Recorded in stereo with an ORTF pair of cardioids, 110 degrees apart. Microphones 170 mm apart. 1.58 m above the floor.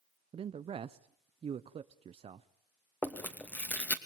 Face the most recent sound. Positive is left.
turn(degrees=10)